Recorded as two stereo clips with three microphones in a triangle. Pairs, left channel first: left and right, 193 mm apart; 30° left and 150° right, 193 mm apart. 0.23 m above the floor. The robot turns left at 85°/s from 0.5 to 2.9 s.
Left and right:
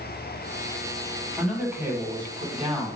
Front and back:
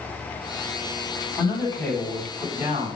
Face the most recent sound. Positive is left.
turn(degrees=-125)